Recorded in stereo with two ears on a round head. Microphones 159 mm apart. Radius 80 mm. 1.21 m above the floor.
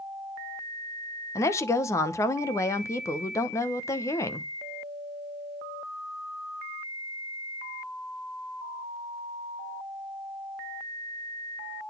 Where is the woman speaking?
15° left (ahead or behind), 0.8 m.